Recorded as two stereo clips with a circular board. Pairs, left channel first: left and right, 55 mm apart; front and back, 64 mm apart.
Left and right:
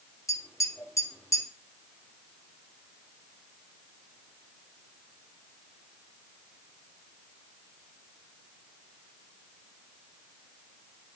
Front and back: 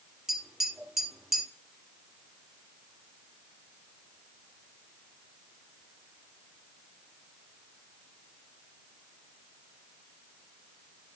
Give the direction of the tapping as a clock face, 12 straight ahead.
9 o'clock.